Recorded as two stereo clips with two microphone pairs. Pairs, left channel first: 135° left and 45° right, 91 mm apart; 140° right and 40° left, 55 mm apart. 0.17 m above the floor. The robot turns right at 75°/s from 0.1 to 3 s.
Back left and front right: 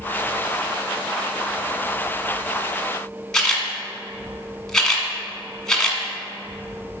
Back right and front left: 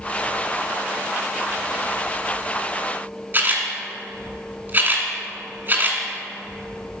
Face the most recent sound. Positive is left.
turn(degrees=55)